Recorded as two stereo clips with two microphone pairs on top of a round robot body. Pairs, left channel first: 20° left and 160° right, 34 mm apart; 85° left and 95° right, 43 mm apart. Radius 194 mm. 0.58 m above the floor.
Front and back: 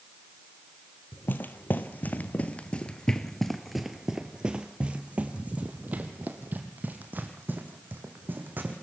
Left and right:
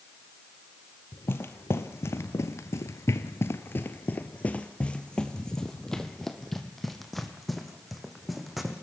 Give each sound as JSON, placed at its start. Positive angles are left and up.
{"t": 1.1, "sound": "footsteps", "azimuth_deg": 45, "distance_m": 1.5}